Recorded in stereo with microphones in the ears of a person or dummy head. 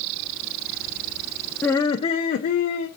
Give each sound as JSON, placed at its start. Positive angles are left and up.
{"t": 1.6, "sound": "laughter", "side_deg": 10, "distance_m": 0.6}